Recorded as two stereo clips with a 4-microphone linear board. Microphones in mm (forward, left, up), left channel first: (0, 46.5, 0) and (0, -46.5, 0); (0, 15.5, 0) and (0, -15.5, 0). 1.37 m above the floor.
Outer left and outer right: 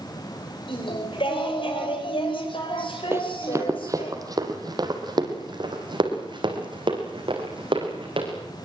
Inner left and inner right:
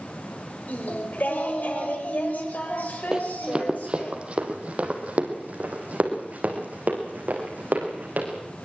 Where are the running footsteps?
25° right (ahead or behind), 2.5 m; by 8.3 s 60° right (ahead or behind), 6 m.